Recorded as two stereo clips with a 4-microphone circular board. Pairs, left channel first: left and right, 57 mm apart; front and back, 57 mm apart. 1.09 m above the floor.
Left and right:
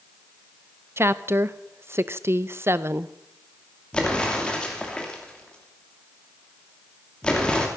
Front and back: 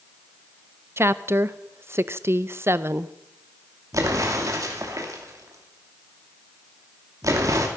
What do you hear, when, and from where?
1.0 s a woman speaking: 135° right, 0.6 m
3.9 s an explosion: 160° left, 2.5 m